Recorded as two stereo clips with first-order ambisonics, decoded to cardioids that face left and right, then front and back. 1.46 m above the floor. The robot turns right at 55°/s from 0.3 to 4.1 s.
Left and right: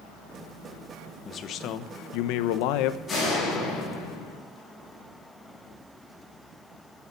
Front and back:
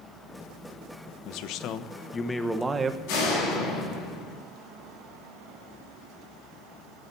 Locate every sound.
1.2 s a man speaking: 25° left, 1.0 m; by 3.0 s 120° left, 1.0 m
3.1 s a door slam: 15° left, 8.5 m; by 4.4 s 70° left, 8.5 m